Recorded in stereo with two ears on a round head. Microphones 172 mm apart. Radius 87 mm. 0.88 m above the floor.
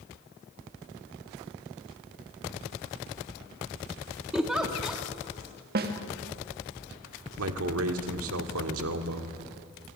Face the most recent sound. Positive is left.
turn(degrees=-75)  # may be behind; listen again after turning